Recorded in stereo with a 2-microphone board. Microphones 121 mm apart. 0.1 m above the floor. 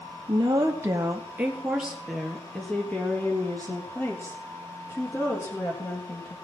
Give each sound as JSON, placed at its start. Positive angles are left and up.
{"t": 0.3, "sound": "a woman speaking", "side_deg": -35, "distance_m": 2.0}